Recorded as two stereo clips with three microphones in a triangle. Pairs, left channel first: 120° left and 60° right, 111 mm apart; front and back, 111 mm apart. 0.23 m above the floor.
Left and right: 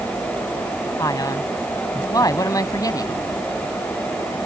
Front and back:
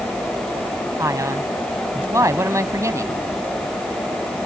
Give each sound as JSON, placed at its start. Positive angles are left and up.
{"t": 1.0, "sound": "a man speaking", "azimuth_deg": 140}